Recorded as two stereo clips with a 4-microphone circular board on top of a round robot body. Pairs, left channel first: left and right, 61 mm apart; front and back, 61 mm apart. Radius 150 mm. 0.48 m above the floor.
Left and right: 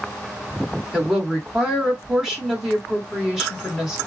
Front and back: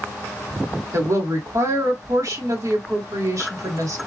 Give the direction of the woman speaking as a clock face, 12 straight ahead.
6 o'clock.